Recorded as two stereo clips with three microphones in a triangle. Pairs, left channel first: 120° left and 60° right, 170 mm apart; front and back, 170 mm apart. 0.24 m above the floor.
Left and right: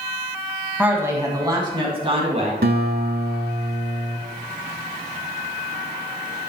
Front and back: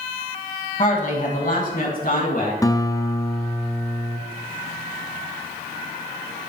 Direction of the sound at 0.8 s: 15° left.